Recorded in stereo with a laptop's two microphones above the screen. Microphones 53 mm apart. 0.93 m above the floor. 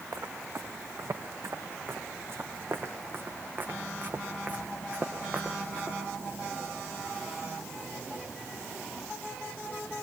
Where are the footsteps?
75° right (ahead or behind), 5 m; by 6.0 s 20° right (ahead or behind), 5.5 m.